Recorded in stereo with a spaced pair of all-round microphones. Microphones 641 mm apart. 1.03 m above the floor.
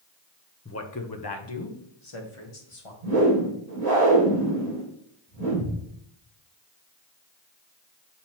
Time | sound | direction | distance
0.7 | a man speaking | 20° left (ahead or behind) | 0.7 m
3.0 | a whoosh | 80° right | 2.5 m